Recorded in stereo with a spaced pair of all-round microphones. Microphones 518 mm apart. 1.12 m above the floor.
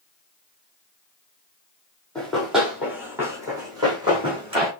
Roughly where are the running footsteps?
Centre.